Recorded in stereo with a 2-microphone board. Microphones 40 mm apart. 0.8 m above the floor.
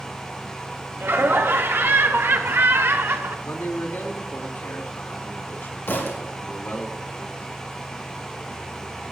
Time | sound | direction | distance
1.0 | laughter | 75° right (ahead or behind) | 2.5 m
3.5 | a man speaking | 70° left (ahead or behind) | 2.5 m
5.9 | a thud | 60° left (ahead or behind) | 4 m